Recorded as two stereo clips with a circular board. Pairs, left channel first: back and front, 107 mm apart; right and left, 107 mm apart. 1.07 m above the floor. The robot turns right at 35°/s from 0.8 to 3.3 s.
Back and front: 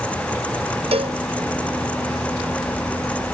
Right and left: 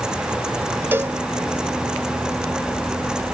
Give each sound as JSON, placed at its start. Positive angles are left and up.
{"t": 0.9, "sound": "a cowbell", "azimuth_deg": 20}